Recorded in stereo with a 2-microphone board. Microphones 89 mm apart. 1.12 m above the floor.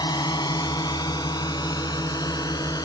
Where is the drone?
50° left (ahead or behind); by 2.9 s 45° left (ahead or behind).